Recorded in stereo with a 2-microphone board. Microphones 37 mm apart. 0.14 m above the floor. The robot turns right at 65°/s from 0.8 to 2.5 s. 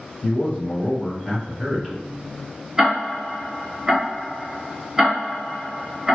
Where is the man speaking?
20° left (ahead or behind), 1.6 m; by 2.0 s 15° right (ahead or behind), 1.6 m.